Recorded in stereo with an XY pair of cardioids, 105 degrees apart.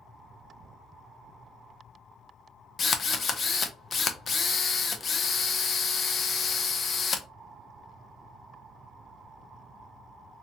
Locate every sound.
2.8 s a drill: 40° left, 0.6 m